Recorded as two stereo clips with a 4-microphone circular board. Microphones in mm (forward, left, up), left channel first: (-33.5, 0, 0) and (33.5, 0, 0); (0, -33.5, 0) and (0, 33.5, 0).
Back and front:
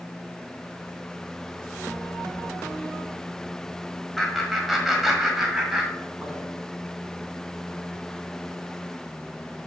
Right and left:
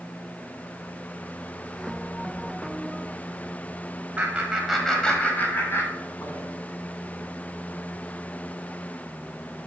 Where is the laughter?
95° left, 1.6 m; by 6.5 s 75° right, 2.5 m.